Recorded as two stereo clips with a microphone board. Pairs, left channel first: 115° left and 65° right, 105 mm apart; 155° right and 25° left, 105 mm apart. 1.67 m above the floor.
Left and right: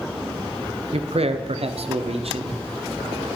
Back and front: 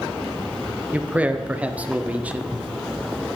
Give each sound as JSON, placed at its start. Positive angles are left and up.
{"t": 0.9, "sound": "a man speaking", "azimuth_deg": -55, "distance_m": 0.7}